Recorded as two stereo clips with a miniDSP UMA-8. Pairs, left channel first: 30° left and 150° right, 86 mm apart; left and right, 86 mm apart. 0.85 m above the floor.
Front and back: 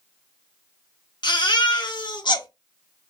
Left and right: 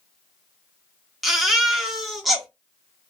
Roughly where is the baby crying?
Ahead.